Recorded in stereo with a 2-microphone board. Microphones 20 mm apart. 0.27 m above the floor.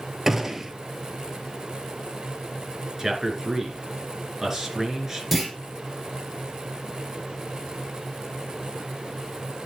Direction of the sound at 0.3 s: 15° right (ahead or behind).